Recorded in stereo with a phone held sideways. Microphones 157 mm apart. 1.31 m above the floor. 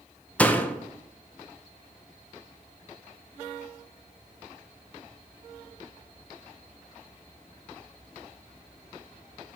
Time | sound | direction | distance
0.4 | a door slam | 10° left (ahead or behind) | 0.6 m